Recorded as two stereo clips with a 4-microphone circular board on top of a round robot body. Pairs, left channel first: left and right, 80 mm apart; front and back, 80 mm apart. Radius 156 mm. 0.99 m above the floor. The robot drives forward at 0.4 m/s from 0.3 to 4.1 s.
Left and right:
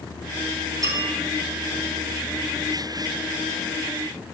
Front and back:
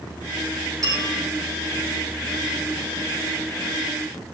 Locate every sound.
0.8 s a bell: 135° right, 5 m